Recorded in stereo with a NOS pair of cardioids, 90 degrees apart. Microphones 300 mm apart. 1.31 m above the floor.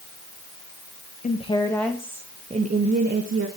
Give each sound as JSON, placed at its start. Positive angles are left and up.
{"t": 1.2, "sound": "a woman speaking", "azimuth_deg": 25, "distance_m": 1.6}